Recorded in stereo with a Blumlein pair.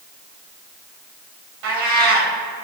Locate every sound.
1.6 s a cat meowing: 45° right, 3.5 m